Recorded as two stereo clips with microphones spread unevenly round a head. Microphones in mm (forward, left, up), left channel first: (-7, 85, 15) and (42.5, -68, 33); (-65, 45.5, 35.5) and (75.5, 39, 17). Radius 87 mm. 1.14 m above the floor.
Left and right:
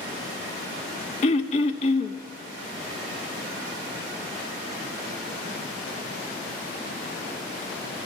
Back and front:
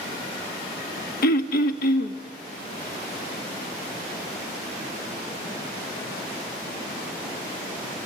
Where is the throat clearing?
165° left, 1.2 m.